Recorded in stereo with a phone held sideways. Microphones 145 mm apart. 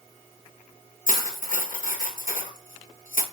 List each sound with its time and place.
1.1 s cutlery clinking: 65° left (ahead or behind), 1.1 m